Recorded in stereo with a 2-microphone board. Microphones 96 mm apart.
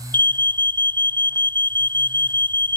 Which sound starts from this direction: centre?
An alarm, at 0.1 s.